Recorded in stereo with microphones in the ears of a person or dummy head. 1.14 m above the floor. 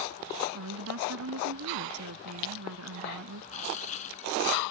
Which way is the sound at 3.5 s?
40° left (ahead or behind).